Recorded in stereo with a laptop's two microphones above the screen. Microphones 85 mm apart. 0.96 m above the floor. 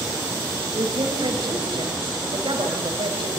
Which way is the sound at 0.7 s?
70° right (ahead or behind).